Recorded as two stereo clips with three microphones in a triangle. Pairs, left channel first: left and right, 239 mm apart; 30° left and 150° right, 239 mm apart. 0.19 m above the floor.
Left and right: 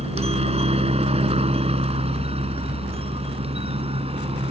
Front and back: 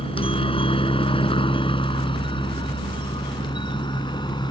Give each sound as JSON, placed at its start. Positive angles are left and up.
{"t": 0.0, "sound": "a helicopter", "azimuth_deg": -30}